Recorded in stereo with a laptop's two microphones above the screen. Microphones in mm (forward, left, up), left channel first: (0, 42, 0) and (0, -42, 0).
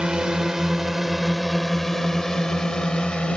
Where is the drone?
10° right (ahead or behind); by 3.4 s 10° left (ahead or behind).